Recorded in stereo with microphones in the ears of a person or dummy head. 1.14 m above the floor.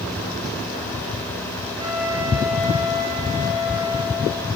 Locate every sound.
1.8 s a flute: 15° right (ahead or behind), 6.5 m